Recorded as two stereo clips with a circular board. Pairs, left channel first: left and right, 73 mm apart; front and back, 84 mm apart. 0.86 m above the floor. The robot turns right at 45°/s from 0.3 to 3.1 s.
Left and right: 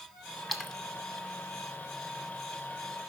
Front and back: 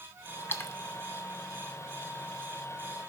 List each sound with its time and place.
0.5 s a splash: straight ahead, 0.7 m; by 0.8 s 15° left, 0.7 m